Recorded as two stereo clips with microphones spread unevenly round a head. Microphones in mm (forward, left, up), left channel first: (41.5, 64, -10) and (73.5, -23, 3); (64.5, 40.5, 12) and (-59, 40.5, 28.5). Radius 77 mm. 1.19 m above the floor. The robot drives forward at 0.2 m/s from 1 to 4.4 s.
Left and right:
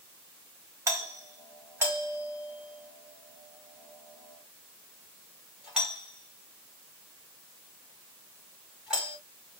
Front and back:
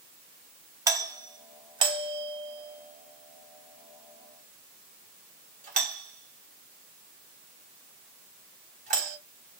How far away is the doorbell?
About 0.7 m.